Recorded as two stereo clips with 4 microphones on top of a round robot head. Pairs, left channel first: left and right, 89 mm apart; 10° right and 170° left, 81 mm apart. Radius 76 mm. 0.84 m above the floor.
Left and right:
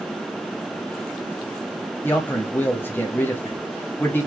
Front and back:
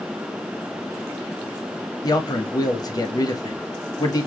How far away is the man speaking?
About 1.9 m.